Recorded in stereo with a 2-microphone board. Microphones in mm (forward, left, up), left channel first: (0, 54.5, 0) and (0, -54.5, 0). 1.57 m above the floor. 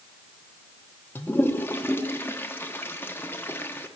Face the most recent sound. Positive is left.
turn(degrees=20)  # may be behind; listen again after turning